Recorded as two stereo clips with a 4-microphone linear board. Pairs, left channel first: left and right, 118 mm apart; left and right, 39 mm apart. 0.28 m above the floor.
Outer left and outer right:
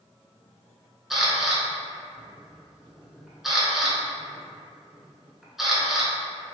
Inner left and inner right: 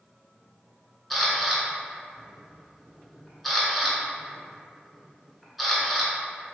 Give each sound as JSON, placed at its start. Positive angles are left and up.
{"t": 1.1, "sound": "a camera shutter", "side_deg": -5, "distance_m": 0.7}